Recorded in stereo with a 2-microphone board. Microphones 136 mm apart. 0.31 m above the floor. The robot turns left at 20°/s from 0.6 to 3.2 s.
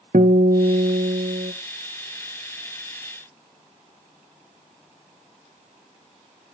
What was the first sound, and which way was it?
A guitar, 85° right.